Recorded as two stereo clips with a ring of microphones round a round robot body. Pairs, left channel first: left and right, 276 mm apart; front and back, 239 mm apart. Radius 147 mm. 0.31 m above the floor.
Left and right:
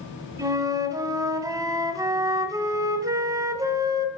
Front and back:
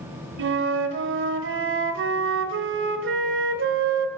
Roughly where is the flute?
Behind.